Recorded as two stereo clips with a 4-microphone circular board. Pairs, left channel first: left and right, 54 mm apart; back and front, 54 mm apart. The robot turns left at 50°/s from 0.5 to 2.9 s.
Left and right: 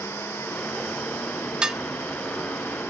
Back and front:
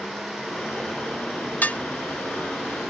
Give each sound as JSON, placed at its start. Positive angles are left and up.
{"t": 1.6, "sound": "dishes clattering", "azimuth_deg": -150}